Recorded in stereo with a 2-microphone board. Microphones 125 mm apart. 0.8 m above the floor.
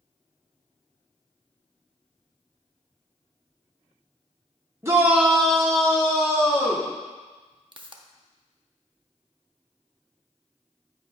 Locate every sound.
4.8 s a shout: 20° right (ahead or behind), 1.0 m; by 6.9 s 35° left (ahead or behind), 2 m
7.7 s a pop: 40° right (ahead or behind), 0.5 m